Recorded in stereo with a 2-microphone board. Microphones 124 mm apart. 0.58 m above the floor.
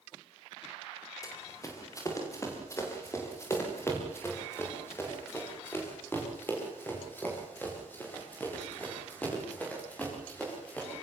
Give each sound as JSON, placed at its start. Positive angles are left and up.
{"t": 1.2, "sound": "running footsteps", "side_deg": 25, "distance_m": 8.0}